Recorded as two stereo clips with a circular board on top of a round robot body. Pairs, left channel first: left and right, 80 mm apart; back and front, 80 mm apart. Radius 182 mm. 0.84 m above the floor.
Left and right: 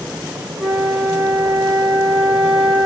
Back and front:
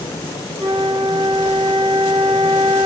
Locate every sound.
0.6 s a flute: 10° right, 1.3 m